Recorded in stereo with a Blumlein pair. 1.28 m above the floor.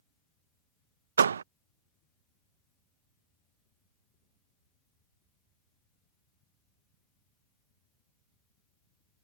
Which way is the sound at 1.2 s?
70° right.